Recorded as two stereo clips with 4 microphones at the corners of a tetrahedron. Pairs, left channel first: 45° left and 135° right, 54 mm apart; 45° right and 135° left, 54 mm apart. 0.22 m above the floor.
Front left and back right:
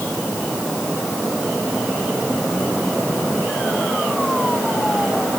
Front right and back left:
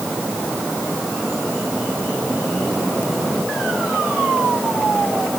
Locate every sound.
Only background noise.